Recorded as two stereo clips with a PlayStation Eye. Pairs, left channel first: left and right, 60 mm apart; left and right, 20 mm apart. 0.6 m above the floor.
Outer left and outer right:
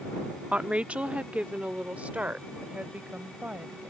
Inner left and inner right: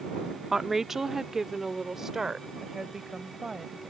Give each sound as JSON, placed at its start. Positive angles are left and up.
{"t": 0.5, "sound": "a woman speaking", "side_deg": -15}